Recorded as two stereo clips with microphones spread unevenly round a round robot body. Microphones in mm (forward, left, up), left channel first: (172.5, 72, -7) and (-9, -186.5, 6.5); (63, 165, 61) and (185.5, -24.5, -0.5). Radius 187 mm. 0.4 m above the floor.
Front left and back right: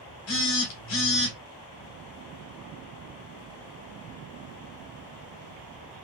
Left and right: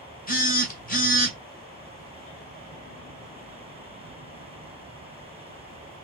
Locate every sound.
0.3 s a phone buzzing: 65° left, 1.5 m